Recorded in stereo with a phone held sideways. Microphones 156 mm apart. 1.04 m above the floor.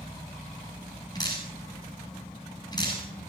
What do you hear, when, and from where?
1.1 s dripping: 25° left (ahead or behind), 8.5 m